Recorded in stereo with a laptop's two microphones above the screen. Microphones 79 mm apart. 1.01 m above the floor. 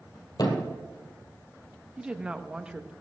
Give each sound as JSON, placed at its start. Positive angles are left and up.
{"t": 0.4, "sound": "a thud", "side_deg": 55, "distance_m": 2.5}
{"t": 2.0, "sound": "a woman speaking", "side_deg": -10, "distance_m": 0.7}